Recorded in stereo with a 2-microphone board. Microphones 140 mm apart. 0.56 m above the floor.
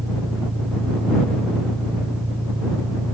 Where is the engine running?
40° right (ahead or behind).